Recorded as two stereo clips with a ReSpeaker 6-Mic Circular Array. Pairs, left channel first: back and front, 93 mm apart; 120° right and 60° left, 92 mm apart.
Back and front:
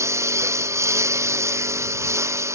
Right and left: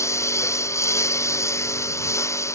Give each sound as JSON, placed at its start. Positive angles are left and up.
{"t": 0.0, "sound": "a lawn mower", "azimuth_deg": -60}